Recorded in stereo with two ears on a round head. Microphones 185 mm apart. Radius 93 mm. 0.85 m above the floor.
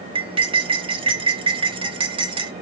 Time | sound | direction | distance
0.1 | cutlery clinking | 25° right (ahead or behind) | 0.8 m